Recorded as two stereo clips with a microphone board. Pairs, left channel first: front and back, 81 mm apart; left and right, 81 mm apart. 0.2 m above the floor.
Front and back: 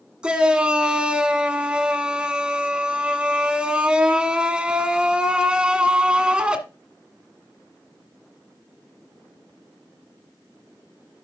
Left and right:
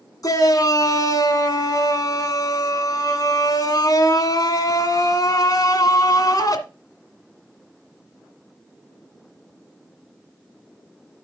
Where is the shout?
105° left, 1.7 m.